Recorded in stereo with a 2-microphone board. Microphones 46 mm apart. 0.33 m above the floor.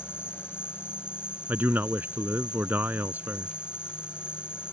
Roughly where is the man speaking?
Right.